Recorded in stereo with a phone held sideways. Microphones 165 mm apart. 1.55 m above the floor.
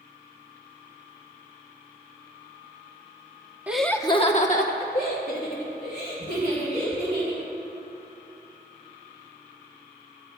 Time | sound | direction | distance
3.7 | laughter | 10° right (ahead or behind) | 1.0 m